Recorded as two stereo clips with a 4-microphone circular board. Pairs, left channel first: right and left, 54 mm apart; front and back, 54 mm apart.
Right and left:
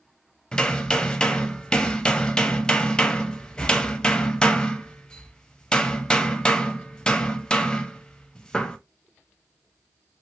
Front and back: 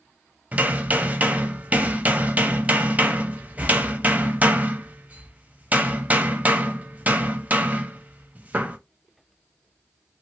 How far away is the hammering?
About 0.5 m.